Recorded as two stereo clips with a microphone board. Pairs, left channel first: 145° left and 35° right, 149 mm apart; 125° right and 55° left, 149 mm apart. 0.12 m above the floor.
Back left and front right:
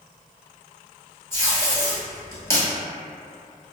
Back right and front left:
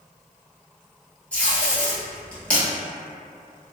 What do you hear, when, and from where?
1.3 s tape being pulled: 170° left, 1.2 m